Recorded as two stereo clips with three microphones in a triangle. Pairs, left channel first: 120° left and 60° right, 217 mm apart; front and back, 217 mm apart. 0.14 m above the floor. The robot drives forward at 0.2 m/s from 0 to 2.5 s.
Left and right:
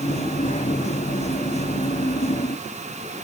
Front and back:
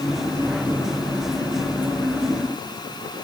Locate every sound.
Only background noise.